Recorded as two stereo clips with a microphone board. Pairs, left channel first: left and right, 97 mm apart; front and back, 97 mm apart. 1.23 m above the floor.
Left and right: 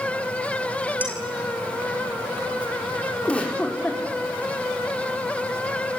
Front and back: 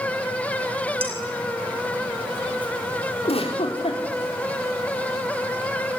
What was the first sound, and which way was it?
Dishes clattering, 165° right.